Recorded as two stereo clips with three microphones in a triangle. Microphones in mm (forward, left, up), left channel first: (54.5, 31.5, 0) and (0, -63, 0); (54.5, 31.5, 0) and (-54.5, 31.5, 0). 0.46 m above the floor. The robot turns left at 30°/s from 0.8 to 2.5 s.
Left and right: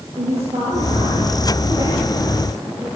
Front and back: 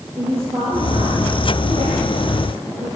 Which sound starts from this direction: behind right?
A woman speaking, at 0.2 s.